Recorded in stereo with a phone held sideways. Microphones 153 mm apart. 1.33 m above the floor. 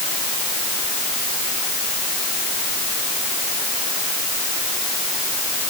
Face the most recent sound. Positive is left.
No sound to turn to.